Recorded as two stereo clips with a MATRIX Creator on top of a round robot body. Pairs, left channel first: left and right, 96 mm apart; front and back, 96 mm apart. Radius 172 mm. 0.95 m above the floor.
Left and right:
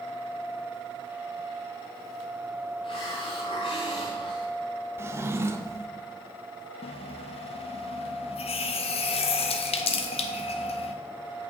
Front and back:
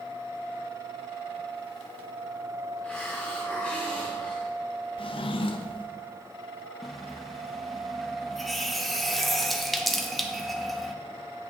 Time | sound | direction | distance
2.8 | a hiss | 75° left | 0.6 m
5.0 | a drawer | 25° right | 0.7 m
6.8 | a running tap | 90° left | 0.5 m